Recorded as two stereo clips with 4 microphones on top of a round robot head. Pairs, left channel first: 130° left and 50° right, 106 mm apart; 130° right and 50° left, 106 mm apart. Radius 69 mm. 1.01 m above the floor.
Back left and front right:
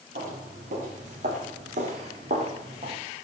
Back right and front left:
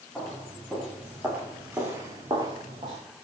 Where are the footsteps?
40° right, 7 m; by 3.0 s straight ahead, 4.5 m.